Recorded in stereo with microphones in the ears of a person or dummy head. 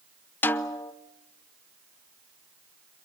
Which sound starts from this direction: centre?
A snare drum, at 0.4 s.